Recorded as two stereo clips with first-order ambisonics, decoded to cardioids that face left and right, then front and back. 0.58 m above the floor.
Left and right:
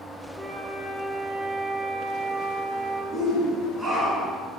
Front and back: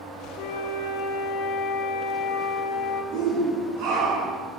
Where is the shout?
170° right, 6.5 m.